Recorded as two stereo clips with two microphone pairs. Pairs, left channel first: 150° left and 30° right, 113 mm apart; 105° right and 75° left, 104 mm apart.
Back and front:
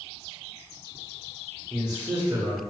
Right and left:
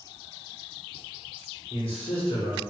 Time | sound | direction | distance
1.7 | a man speaking | 90° right | 0.9 m